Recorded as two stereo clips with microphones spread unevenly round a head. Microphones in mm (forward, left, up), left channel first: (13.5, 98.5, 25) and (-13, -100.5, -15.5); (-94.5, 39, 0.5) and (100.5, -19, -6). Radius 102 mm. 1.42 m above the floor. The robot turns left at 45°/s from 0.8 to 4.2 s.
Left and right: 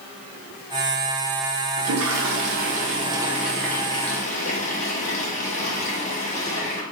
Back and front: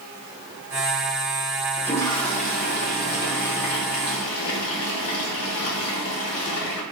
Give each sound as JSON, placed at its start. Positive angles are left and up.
{"t": 1.8, "sound": "a toilet flushing", "azimuth_deg": -110, "distance_m": 0.6}